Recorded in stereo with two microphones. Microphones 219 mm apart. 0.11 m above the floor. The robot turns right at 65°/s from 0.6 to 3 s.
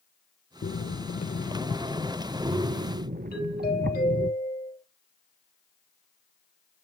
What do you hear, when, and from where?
0.6 s breathing: 85° left, 0.5 m; by 4.3 s 120° right, 0.5 m
3.3 s a doorbell: 45° left (ahead or behind), 5 m